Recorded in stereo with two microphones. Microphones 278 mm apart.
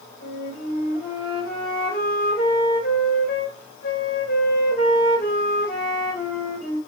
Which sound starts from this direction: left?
A flute, at 0.2 s.